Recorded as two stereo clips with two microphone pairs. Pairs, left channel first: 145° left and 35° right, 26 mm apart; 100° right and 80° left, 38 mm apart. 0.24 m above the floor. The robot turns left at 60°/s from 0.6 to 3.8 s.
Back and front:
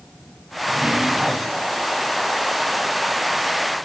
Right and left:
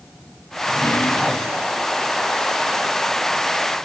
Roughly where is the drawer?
Ahead right.